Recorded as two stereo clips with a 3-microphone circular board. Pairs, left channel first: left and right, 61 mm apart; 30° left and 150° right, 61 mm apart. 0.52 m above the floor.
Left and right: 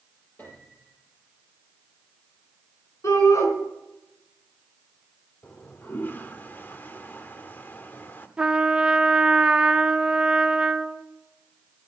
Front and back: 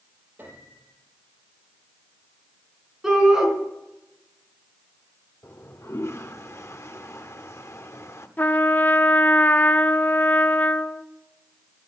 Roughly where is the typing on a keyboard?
No typing on a keyboard in this recording.